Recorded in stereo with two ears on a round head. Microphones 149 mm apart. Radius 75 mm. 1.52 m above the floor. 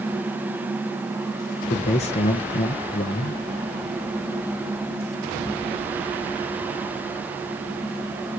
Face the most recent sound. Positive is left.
turn(degrees=40)  # may be behind; listen again after turning